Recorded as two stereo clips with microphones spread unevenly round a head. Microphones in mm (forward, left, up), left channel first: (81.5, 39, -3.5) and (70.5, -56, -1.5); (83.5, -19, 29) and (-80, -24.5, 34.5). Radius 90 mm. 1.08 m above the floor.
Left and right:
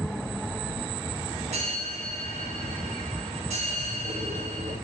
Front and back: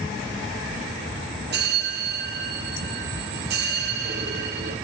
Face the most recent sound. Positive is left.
turn(degrees=-155)